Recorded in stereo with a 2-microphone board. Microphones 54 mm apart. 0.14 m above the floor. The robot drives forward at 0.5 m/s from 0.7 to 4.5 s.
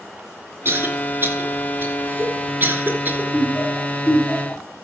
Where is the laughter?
30° left (ahead or behind), 3.5 m; by 4.6 s 35° left (ahead or behind), 3 m.